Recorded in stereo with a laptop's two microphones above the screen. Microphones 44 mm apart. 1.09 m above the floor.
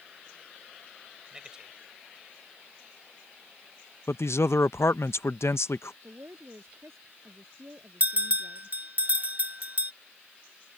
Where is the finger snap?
No finger snap in this recording.